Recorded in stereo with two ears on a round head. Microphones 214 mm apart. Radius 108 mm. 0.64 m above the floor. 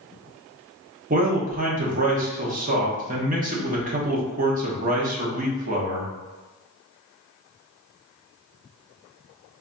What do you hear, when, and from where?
1.1 s a man speaking: 35° right (ahead or behind), 0.8 m